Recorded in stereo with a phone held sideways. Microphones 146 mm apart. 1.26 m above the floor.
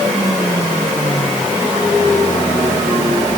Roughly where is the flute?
No flute in this recording.